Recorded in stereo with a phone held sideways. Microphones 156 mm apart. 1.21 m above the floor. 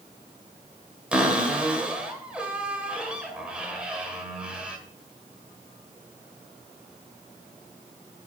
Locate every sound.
1.1 s a cupboard door: 5° right (ahead or behind), 2.0 m